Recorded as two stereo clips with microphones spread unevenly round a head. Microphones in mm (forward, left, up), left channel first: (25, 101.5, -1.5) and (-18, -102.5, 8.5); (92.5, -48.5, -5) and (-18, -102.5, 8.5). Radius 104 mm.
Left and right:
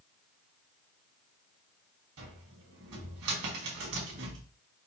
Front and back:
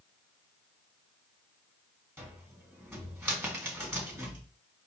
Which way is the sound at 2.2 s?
80° right.